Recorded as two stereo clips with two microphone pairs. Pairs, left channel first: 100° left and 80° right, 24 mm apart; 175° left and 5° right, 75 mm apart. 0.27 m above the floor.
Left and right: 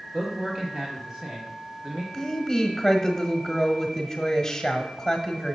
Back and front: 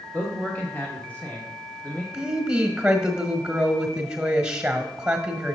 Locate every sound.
0.1 s a man speaking: 135° right, 1.3 m
2.1 s a woman speaking: 65° left, 1.2 m